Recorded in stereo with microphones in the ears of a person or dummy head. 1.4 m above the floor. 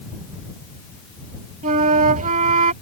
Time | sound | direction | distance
1.6 | a flute | 40° right (ahead or behind) | ?